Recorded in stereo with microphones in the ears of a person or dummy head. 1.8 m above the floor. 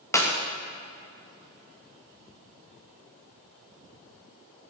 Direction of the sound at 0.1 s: 20° left (ahead or behind).